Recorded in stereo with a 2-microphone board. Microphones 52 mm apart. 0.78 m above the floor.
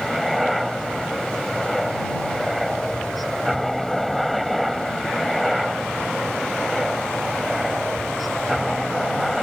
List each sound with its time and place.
0.0 s a helicopter: centre (ahead or behind)